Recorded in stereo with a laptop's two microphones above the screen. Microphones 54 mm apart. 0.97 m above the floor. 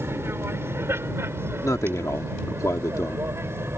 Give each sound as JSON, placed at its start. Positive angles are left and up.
{"t": 0.0, "sound": "an aircraft", "side_deg": -50}
{"t": 1.6, "sound": "a man speaking", "side_deg": 75}